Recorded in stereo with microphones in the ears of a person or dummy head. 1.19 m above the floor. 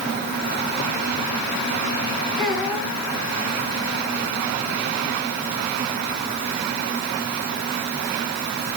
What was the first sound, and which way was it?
A child speaking, 5° left (ahead or behind).